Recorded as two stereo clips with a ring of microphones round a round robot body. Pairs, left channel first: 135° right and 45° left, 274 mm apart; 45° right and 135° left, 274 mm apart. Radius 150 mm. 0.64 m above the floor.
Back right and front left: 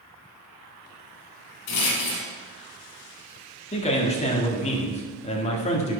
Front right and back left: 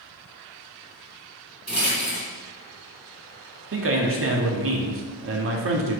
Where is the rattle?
140° right, 2.5 m.